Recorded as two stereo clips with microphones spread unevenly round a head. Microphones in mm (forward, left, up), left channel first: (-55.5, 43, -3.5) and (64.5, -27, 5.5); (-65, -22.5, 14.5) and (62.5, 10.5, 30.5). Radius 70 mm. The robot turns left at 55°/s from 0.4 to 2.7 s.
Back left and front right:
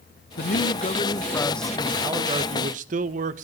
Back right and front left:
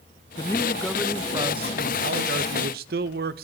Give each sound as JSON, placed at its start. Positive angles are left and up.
{"t": 0.4, "sound": "a man speaking", "azimuth_deg": 130, "distance_m": 0.8}